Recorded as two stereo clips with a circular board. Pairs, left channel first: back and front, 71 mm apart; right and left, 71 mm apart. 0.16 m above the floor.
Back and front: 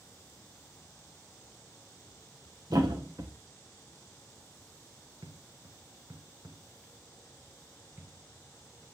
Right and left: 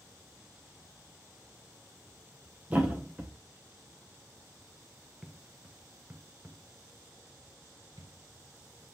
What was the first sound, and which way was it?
A thud, 25° left.